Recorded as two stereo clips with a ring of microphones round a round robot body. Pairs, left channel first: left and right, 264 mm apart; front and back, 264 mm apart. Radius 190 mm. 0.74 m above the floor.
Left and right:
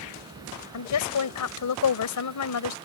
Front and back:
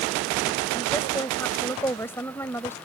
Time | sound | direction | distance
0.7 | a woman speaking | 85° left | ?